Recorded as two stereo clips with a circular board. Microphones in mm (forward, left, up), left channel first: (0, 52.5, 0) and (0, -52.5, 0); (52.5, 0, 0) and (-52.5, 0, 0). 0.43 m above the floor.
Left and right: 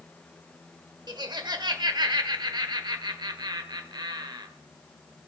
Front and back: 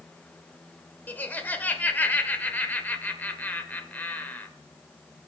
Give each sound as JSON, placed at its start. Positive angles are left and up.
{"t": 1.1, "sound": "laughter", "azimuth_deg": -65, "distance_m": 1.2}